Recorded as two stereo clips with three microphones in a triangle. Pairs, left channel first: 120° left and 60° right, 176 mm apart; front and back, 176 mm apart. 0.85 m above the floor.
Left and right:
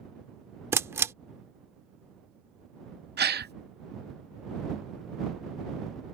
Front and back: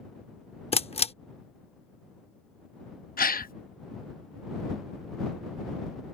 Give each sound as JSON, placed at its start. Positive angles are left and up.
{"t": 0.7, "sound": "a camera shutter", "azimuth_deg": 5}
{"t": 3.2, "sound": "a gasp", "azimuth_deg": -35}